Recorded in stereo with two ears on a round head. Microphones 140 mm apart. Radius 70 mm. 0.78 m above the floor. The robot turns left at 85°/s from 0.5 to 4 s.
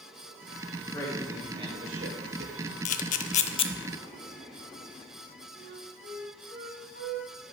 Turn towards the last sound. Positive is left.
turn(degrees=75)  # may be behind; listen again after turning